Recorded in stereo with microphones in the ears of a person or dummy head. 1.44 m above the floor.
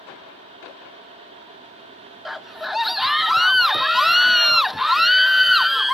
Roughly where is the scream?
Centre.